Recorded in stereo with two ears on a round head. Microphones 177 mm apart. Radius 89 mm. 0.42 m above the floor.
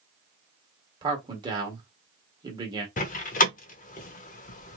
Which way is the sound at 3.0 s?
40° left (ahead or behind).